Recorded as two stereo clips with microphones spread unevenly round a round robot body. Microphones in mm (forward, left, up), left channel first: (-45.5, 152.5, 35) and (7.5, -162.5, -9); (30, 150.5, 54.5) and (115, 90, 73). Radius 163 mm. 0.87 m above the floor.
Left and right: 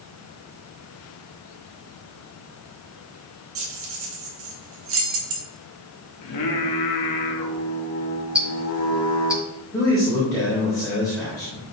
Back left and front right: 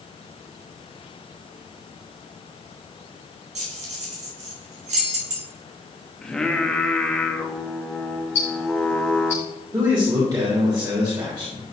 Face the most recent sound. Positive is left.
turn(degrees=20)